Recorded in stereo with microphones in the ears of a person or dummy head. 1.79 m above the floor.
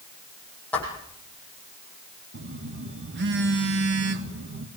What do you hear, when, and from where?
0.7 s footsteps: 10° left (ahead or behind), 4.5 m
2.3 s a phone buzzing: 60° right (ahead or behind), 1.9 m